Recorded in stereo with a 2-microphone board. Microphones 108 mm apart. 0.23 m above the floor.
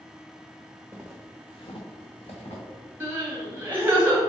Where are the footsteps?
20° right (ahead or behind), 0.9 m; by 2.6 s 80° left, 2.5 m.